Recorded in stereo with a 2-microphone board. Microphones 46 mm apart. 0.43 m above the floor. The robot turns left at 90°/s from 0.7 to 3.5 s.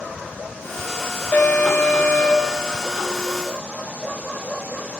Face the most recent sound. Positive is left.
turn(degrees=-60)